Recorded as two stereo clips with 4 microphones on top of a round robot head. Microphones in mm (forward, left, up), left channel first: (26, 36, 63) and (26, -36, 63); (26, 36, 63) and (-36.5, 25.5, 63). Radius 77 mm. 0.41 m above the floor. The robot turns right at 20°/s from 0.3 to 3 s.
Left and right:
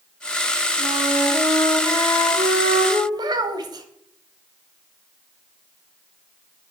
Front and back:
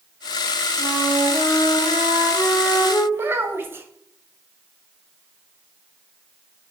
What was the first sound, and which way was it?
A flute, 125° right.